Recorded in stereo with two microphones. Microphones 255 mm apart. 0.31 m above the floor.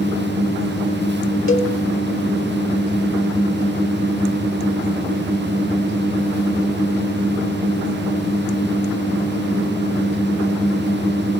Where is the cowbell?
55° left (ahead or behind), 0.8 m.